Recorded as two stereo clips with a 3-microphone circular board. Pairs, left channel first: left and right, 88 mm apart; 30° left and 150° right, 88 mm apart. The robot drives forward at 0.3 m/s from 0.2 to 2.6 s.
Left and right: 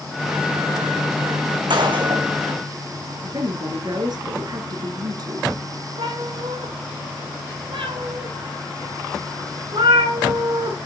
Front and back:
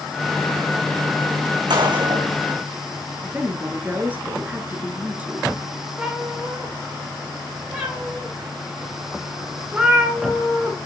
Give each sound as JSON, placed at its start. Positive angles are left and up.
{"t": 1.7, "sound": "a gunshot", "azimuth_deg": -120, "distance_m": 2.5}
{"t": 3.2, "sound": "a woman speaking", "azimuth_deg": -85, "distance_m": 1.6}
{"t": 6.0, "sound": "a cat meowing", "azimuth_deg": -75, "distance_m": 5.0}